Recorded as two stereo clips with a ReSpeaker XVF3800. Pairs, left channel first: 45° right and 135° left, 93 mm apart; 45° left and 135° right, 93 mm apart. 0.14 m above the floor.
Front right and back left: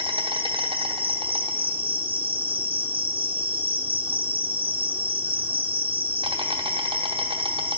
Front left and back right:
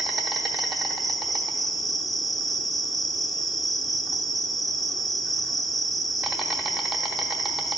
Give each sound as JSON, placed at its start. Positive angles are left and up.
{"t": 0.0, "sound": "an insect", "azimuth_deg": 135, "distance_m": 0.8}